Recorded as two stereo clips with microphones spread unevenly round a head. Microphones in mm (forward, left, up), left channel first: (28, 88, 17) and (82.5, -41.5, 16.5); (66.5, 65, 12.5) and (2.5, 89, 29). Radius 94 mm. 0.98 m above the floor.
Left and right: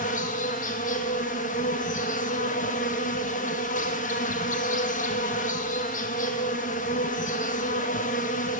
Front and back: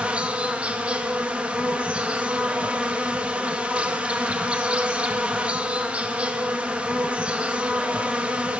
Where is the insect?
85° left, 0.9 m.